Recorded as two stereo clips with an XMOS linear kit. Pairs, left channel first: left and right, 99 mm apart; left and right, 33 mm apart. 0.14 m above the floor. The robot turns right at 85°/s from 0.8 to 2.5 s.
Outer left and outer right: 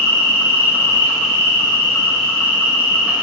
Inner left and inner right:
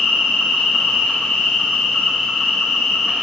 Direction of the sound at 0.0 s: 50° left.